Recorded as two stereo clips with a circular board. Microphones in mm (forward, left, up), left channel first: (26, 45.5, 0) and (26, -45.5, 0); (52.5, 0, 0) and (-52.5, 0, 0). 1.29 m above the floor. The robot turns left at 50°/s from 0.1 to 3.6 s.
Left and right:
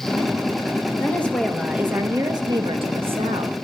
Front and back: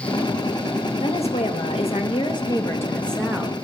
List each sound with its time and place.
1.0 s a woman speaking: 25° left, 1.5 m; by 3.5 s 105° right, 1.5 m